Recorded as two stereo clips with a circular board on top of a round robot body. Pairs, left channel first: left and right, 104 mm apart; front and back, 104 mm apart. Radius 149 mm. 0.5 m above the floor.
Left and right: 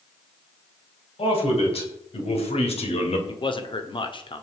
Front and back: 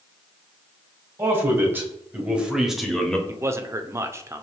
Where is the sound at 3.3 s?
120° left, 1.8 m.